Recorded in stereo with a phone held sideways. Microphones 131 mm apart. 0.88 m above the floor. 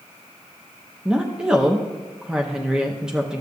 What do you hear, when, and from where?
1.1 s a woman speaking: 5° right (ahead or behind), 0.7 m